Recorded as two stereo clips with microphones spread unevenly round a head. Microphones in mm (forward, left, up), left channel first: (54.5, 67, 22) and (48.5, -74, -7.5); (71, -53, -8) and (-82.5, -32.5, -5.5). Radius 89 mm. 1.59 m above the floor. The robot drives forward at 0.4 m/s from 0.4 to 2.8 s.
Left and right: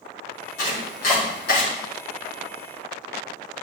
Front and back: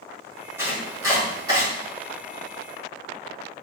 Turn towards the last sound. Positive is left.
turn(degrees=110)